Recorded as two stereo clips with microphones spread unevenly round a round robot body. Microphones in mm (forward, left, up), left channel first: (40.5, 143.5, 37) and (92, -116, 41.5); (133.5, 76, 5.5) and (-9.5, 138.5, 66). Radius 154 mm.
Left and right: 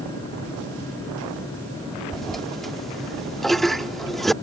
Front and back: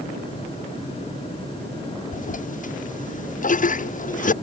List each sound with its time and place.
2.1 s a toilet flushing: 10° left